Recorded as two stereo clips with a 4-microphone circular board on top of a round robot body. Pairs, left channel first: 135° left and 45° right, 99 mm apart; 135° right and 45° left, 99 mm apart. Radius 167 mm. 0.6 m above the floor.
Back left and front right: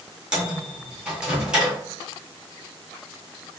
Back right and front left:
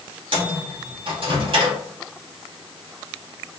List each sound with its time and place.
0.3 s a microwave: 35° left, 1.4 m